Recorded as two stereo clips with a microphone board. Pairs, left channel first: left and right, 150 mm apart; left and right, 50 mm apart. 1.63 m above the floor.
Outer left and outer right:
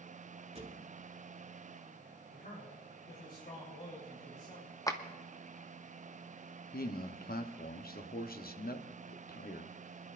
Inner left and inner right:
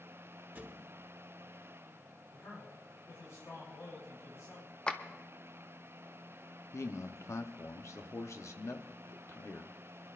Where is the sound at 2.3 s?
85° left, 4.5 m.